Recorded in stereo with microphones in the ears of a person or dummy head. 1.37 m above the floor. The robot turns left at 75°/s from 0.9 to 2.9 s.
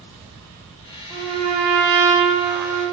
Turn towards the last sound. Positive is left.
turn(degrees=-140)